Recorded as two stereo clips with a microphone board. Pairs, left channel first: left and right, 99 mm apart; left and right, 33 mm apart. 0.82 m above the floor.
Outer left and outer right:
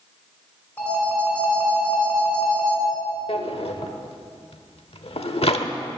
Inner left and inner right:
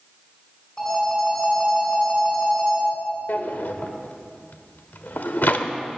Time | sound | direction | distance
0.8 | a phone ringing | 25° left (ahead or behind) | 5 m
3.3 | a drawer | 70° left (ahead or behind) | 0.9 m